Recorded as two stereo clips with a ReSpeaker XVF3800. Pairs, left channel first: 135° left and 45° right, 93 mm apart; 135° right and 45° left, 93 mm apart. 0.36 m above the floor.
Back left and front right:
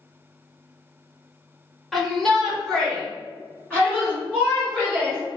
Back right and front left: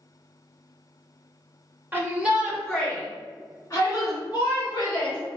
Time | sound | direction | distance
1.9 | a shout | 50° left | 1.3 m